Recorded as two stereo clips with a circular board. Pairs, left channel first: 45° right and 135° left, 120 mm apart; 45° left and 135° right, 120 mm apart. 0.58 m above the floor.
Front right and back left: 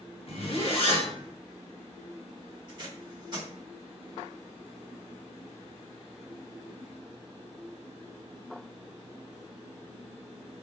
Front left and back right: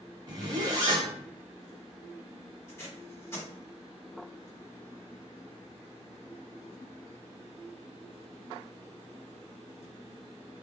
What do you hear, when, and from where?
0.3 s a zipper: 85° right, 0.8 m
2.7 s tape being pulled: 105° left, 1.5 m